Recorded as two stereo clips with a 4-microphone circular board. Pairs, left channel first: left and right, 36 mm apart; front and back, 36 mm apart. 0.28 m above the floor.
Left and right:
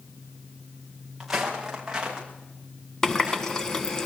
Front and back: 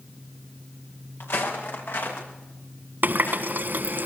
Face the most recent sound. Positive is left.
turn(degrees=165)